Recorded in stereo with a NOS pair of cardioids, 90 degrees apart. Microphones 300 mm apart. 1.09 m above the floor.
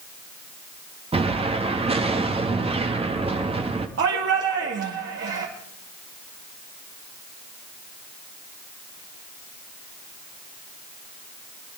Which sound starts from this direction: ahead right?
A shout, at 4.0 s.